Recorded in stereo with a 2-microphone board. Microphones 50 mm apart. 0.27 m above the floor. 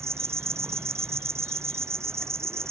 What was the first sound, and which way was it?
An insect, 60° right (ahead or behind).